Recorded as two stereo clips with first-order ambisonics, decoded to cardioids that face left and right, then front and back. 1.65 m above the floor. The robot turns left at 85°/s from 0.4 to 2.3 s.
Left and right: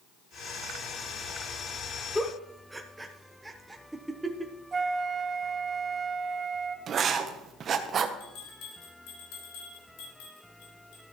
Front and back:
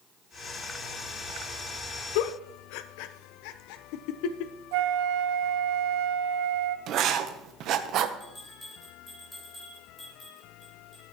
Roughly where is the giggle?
Ahead.